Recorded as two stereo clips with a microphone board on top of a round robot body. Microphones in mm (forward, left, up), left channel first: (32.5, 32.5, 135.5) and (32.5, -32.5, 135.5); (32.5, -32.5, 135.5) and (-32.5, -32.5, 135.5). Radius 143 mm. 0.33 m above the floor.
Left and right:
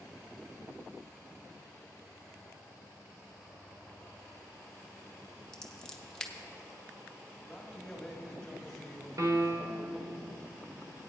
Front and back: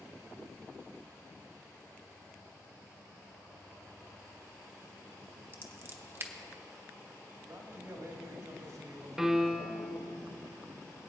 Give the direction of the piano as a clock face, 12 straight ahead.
3 o'clock.